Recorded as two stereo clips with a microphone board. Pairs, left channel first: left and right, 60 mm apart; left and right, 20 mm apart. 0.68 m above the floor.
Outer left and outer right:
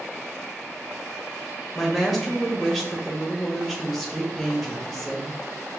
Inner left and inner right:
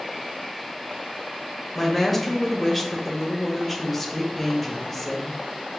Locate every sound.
1.8 s a woman speaking: centre (ahead or behind), 0.9 m